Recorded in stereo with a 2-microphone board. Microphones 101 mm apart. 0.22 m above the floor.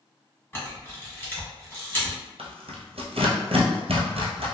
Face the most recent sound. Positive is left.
turn(degrees=-85)